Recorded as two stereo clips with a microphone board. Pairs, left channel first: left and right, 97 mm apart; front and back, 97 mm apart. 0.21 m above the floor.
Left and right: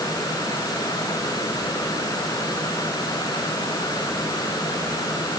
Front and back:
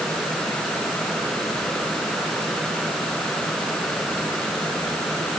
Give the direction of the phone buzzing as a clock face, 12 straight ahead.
No phone buzzing in this recording.